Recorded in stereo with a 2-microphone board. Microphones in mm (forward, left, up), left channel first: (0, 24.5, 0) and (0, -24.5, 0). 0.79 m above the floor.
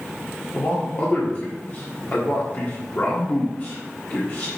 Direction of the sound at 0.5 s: 40° left (ahead or behind).